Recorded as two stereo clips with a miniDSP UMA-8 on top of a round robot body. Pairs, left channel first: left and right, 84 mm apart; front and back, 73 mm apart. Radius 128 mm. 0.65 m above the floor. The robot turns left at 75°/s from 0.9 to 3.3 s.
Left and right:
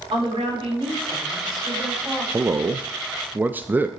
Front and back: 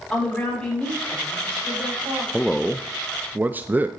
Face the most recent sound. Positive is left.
turn(degrees=-140)